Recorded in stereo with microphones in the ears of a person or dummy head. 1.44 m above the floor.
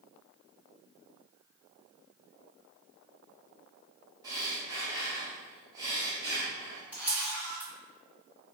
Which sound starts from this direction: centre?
A camera shutter, at 6.9 s.